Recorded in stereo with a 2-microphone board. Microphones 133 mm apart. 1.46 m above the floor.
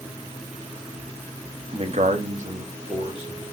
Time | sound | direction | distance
1.7 | a man speaking | 40° right (ahead or behind) | 0.8 m